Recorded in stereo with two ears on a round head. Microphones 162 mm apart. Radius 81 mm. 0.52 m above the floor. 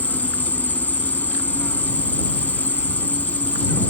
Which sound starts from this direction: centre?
An insect, at 0.0 s.